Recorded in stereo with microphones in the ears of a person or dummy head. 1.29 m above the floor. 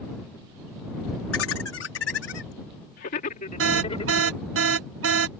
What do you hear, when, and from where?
1.3 s laughter: 80° left; by 4.4 s 35° left (ahead or behind)
3.6 s an alarm: 75° right (ahead or behind)